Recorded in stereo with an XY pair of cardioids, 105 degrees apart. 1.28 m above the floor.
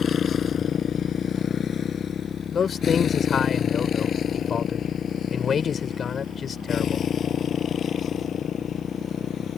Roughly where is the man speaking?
Ahead left.